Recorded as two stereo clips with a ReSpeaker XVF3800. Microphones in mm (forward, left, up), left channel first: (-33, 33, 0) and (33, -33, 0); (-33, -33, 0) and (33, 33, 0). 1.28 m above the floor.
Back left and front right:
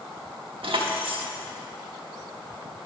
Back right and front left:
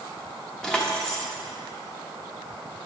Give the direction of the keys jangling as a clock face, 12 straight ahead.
2 o'clock.